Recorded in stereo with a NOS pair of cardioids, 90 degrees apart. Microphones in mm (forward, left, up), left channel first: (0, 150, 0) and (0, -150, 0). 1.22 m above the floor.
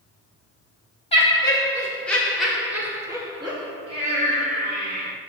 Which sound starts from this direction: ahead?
Laughter, at 1.1 s.